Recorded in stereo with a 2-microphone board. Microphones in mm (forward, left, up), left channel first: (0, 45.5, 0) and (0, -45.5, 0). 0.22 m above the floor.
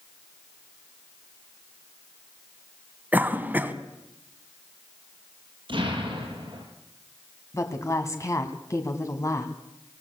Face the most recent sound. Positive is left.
turn(degrees=35)  # may be behind; listen again after turning